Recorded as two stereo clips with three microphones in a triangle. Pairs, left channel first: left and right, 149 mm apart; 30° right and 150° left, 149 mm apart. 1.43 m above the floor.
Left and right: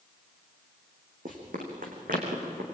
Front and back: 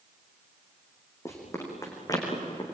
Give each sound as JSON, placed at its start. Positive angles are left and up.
{"t": 1.2, "sound": "running footsteps", "azimuth_deg": -100, "distance_m": 5.5}